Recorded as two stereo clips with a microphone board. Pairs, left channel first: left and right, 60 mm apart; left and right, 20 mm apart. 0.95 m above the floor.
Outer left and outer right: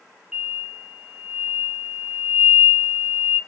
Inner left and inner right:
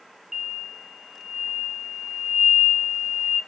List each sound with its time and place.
0.3 s an explosion: 10° right (ahead or behind), 0.6 m